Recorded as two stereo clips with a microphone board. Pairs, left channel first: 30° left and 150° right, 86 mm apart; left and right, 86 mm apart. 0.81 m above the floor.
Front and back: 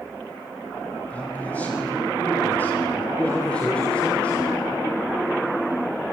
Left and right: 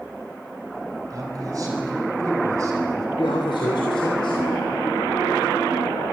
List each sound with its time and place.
1.1 s a man speaking: 40° right, 6.5 m; by 3.1 s 30° right, 7 m
3.2 s a man speaking: 105° left, 3 m